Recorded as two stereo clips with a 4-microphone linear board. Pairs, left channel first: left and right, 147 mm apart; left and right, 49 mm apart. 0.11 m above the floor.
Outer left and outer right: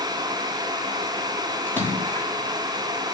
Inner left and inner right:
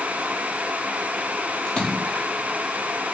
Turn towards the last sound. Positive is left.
turn(degrees=15)  # may be behind; listen again after turning